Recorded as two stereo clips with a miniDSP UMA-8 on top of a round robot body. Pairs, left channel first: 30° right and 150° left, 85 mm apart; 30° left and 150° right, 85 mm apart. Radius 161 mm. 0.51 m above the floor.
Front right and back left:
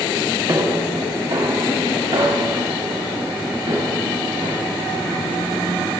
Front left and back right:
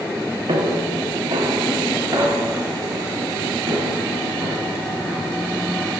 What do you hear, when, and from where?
0.5 s footsteps: 170° right, 3 m; by 5.9 s 135° left, 6.5 m